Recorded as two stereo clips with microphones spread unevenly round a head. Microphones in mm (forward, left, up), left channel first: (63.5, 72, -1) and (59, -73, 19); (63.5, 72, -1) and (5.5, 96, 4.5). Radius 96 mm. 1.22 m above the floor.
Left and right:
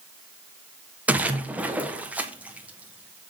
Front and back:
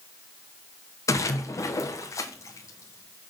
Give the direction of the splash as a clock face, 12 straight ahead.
12 o'clock.